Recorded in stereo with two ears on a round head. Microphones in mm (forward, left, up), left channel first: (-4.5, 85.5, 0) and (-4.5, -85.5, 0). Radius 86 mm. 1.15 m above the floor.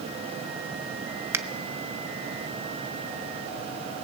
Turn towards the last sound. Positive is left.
turn(degrees=-15)  # may be behind; listen again after turning